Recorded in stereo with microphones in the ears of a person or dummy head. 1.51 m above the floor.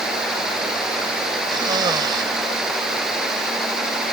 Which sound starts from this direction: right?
A cough, at 1.5 s.